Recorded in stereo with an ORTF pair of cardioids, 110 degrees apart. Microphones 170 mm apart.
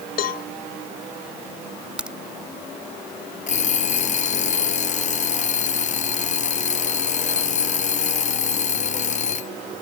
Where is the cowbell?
65° left.